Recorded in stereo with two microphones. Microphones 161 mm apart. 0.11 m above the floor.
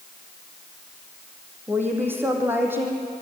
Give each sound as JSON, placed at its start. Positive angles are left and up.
{"t": 1.7, "sound": "a woman speaking", "side_deg": -15, "distance_m": 4.5}